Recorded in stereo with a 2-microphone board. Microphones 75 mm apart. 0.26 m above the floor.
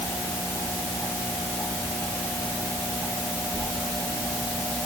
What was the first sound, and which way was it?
Only background noise.